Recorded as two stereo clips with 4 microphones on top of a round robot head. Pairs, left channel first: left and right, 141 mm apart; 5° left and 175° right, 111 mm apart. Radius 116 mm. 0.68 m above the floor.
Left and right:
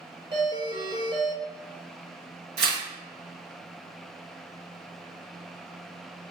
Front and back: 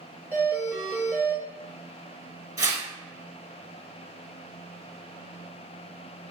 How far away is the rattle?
I don't hear a rattle.